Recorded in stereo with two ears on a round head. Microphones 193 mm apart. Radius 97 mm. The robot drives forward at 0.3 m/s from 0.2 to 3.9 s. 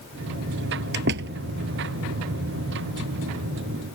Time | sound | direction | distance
0.9 | a door slam | 50° right (ahead or behind) | ?